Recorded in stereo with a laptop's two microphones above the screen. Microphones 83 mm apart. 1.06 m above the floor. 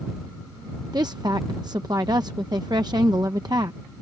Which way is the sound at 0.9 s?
55° right (ahead or behind).